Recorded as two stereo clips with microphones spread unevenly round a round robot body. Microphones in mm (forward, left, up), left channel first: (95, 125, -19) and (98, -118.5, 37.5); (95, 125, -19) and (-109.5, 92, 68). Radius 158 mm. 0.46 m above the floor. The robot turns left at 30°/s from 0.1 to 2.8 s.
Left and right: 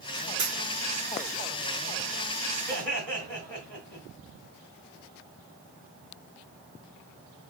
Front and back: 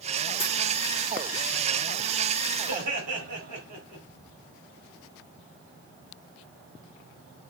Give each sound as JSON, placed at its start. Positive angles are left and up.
{"t": 0.4, "sound": "a dropped coin", "azimuth_deg": -90, "distance_m": 3.5}
{"t": 2.7, "sound": "laughter", "azimuth_deg": -135, "distance_m": 3.0}